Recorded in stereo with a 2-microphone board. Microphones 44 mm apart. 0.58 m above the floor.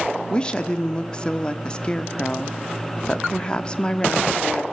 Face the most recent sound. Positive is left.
turn(degrees=20)  # may be behind; listen again after turning